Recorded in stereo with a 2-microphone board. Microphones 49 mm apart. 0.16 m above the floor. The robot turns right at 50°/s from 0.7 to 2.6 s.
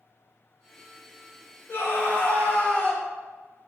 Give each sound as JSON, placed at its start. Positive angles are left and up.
{"t": 1.7, "sound": "a scream", "azimuth_deg": 95, "distance_m": 1.4}